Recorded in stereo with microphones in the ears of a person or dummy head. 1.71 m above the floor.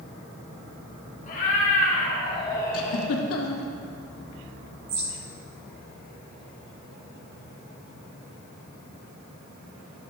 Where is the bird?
45° right (ahead or behind), 1.6 m.